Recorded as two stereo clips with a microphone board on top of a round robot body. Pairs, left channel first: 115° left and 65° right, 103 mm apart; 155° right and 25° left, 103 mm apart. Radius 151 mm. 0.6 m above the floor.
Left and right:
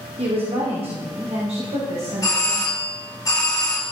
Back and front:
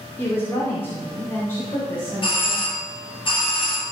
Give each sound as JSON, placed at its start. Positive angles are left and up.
{"t": 0.2, "sound": "a woman speaking", "azimuth_deg": -90, "distance_m": 3.0}
{"t": 2.2, "sound": "a doorbell", "azimuth_deg": 170, "distance_m": 3.0}